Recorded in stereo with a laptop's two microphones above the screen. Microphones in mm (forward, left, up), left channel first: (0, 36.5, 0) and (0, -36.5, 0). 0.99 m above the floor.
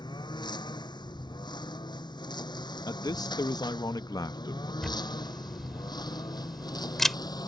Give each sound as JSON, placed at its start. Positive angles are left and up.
{"t": 0.0, "sound": "a lawn mower", "side_deg": 85}
{"t": 2.9, "sound": "a man speaking", "side_deg": 65}
{"t": 4.8, "sound": "a camera shutter", "side_deg": 5}